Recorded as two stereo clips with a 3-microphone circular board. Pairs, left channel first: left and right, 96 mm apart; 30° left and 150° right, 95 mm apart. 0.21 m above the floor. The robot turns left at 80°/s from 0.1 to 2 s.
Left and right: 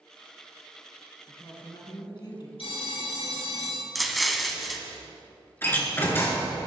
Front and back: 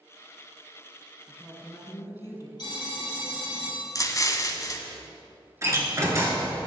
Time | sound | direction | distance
1.3 | a woman speaking | 125° left | 2.5 m
2.6 | a phone ringing | 70° left | 3 m
4.0 | an explosion | straight ahead | 0.9 m
5.6 | a door slam | 155° left | 2.5 m